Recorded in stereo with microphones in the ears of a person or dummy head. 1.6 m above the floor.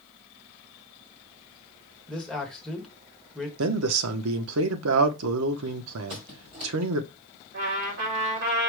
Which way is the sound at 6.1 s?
30° right (ahead or behind).